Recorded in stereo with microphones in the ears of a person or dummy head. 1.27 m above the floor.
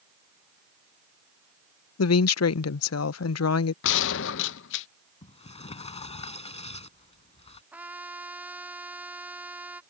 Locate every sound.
2.0 s a woman speaking: 80° left
3.8 s a gunshot: 70° left (ahead or behind)
5.2 s a sliding door: 30° left (ahead or behind)
7.7 s a trumpet: 10° right (ahead or behind)